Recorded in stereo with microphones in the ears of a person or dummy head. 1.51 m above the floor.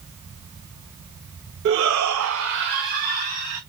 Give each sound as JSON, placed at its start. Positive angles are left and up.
{"t": 1.6, "sound": "a shout", "side_deg": -55, "distance_m": 0.8}